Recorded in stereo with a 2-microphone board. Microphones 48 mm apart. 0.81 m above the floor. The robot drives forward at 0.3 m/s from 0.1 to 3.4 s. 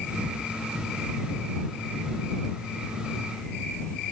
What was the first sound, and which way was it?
Only background noise.